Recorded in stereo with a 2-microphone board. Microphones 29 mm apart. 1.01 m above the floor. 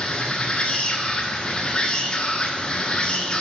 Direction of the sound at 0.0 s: 30° left (ahead or behind).